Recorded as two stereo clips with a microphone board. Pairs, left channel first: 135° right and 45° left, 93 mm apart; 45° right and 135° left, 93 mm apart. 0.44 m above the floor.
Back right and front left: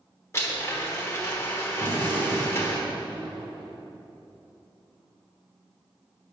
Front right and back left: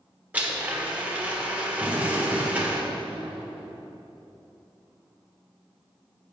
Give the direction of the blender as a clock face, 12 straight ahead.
5 o'clock.